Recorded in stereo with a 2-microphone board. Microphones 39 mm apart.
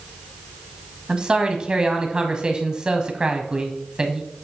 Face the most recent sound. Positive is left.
turn(degrees=-20)  # may be behind; listen again after turning